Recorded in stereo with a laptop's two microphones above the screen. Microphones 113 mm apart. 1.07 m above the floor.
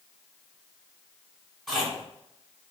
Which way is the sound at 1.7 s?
5° left (ahead or behind).